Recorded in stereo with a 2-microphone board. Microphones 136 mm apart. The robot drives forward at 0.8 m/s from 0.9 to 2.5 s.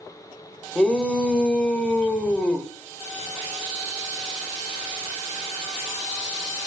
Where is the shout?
5° left (ahead or behind), 1.6 m; by 2.7 s 10° left (ahead or behind), 1.5 m.